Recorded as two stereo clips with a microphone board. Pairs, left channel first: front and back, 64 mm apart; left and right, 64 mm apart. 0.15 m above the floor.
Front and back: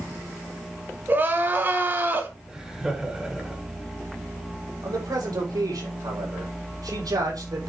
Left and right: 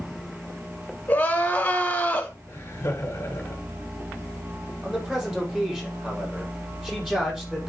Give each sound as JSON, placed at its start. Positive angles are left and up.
{"t": 1.1, "sound": "crying", "azimuth_deg": 140, "distance_m": 1.8}
{"t": 2.5, "sound": "laughter", "azimuth_deg": 105, "distance_m": 1.6}
{"t": 4.8, "sound": "a man speaking", "azimuth_deg": -170, "distance_m": 5.0}